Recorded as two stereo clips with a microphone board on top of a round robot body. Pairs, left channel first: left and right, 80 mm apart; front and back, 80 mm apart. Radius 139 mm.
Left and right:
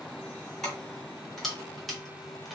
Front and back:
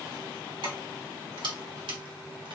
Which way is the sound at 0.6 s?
175° left.